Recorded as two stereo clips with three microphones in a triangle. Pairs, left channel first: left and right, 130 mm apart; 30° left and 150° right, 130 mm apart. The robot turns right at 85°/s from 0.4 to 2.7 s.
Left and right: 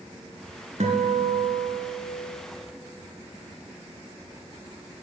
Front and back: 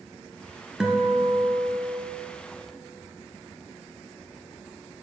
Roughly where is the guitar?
Ahead right.